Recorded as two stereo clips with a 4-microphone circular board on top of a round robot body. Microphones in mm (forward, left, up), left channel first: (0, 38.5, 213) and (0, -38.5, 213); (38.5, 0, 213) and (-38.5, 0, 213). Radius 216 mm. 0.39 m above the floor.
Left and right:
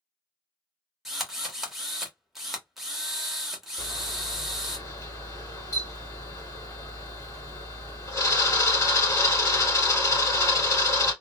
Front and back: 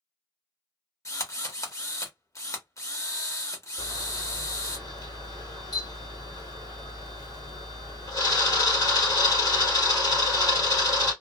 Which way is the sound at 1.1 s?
5° right.